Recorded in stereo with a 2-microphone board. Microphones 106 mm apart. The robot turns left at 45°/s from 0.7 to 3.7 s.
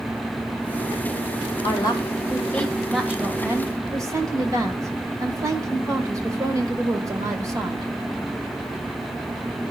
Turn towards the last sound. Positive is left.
turn(degrees=-35)